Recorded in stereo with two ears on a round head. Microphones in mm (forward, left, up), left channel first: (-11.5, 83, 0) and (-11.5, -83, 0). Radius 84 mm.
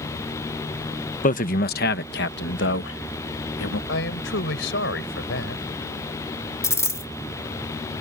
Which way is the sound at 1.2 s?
45° left (ahead or behind).